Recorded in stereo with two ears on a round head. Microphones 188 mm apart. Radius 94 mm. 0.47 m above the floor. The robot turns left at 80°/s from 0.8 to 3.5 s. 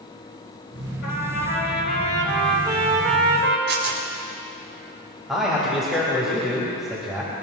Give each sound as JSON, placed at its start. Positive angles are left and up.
{"t": 1.0, "sound": "a trumpet", "azimuth_deg": 115, "distance_m": 3.0}
{"t": 3.7, "sound": "tearing paper", "side_deg": -70, "distance_m": 3.5}
{"t": 5.3, "sound": "a man speaking", "side_deg": 0, "distance_m": 3.0}